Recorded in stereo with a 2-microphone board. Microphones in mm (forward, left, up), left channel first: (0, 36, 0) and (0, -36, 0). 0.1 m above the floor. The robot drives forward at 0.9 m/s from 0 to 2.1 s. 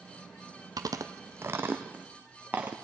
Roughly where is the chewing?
Right.